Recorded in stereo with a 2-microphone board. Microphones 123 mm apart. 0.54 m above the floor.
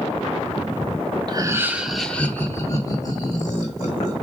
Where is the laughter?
35° right (ahead or behind), 0.8 m; by 4.1 s 45° left (ahead or behind), 2 m.